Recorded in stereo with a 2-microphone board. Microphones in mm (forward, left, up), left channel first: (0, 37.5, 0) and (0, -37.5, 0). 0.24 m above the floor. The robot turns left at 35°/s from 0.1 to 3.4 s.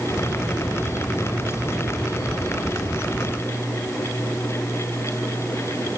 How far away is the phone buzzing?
I don't hear a phone buzzing.